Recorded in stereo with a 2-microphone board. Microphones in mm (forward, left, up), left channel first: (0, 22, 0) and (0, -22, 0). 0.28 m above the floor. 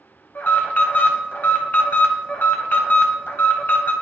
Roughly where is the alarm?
Left.